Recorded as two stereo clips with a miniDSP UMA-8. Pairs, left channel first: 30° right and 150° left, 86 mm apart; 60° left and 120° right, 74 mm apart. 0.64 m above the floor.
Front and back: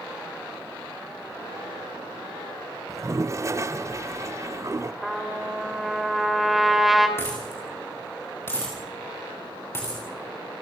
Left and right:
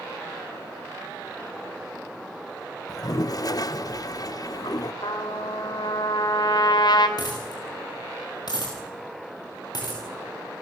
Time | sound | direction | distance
2.9 | a toilet flushing | 95° left | 0.6 m
5.0 | a trumpet | 60° left | 3 m
7.2 | a dropped coin | 35° left | 6.5 m